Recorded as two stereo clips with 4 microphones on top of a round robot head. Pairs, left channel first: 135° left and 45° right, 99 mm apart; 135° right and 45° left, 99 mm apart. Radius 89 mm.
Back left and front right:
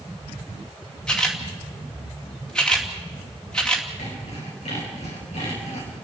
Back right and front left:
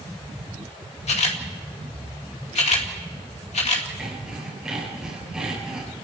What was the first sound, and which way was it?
A camera shutter, 140° right.